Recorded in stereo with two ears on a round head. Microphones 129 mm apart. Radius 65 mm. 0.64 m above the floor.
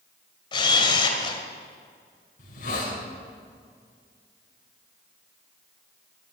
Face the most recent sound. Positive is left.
turn(degrees=60)  # may be behind; listen again after turning